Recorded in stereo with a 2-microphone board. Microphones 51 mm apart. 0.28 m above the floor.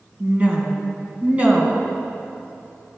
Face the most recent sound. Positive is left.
turn(degrees=-30)  # may be behind; listen again after turning